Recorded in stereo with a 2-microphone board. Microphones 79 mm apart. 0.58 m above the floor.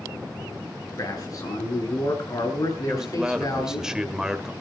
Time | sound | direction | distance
1.0 | a man speaking | 50° left (ahead or behind) | 7.5 m
2.9 | a man speaking | 10° right (ahead or behind) | 2.0 m